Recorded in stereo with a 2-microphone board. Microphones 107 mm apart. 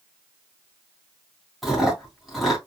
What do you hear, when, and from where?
1.6 s chewing: centre (ahead or behind), 2.5 m